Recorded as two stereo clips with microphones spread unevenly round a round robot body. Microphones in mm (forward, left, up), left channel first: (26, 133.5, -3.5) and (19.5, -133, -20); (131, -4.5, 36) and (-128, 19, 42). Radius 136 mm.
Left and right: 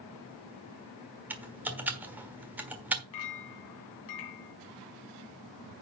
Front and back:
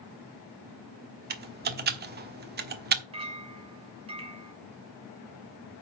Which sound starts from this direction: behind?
Typing on a keyboard, at 1.3 s.